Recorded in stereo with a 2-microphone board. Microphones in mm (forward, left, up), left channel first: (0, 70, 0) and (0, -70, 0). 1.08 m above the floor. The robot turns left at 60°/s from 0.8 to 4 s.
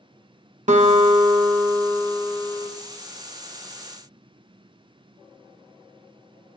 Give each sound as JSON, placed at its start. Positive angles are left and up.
{"t": 0.7, "sound": "a guitar", "azimuth_deg": -70, "distance_m": 1.1}